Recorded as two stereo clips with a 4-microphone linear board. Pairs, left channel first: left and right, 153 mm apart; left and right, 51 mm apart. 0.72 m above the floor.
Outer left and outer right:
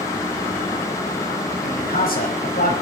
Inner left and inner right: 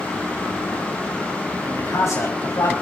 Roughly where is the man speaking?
Left.